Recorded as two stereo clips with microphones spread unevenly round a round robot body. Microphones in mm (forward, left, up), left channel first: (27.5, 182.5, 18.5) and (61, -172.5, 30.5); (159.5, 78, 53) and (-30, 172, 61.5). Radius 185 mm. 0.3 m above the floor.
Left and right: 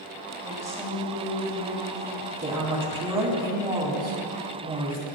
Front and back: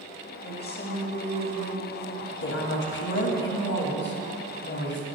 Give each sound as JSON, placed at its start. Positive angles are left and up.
{"t": 0.4, "sound": "a woman speaking", "azimuth_deg": -5, "distance_m": 2.0}
{"t": 2.4, "sound": "a woman speaking", "azimuth_deg": -10, "distance_m": 1.8}